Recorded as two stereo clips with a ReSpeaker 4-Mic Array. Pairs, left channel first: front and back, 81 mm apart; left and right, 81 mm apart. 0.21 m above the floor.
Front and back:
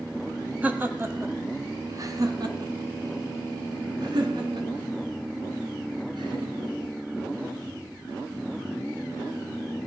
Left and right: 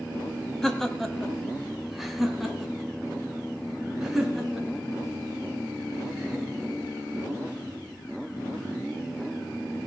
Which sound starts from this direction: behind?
Laughter, at 0.6 s.